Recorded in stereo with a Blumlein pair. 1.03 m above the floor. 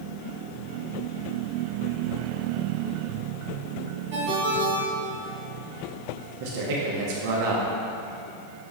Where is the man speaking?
45° right, 1.1 m.